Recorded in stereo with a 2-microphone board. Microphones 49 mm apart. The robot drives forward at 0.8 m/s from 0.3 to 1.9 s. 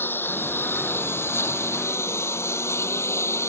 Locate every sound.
0.0 s a lawn mower: 45° left (ahead or behind); by 3.5 s 65° left (ahead or behind)